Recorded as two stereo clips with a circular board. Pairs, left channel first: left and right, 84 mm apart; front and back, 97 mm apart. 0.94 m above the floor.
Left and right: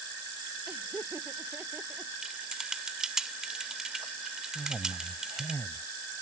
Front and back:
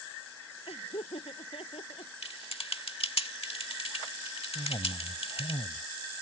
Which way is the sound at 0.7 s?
20° right.